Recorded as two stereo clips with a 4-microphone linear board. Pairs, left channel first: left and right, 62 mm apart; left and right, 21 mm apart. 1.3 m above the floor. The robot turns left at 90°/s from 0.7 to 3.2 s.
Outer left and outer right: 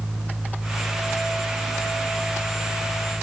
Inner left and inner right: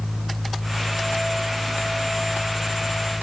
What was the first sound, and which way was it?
Only background noise.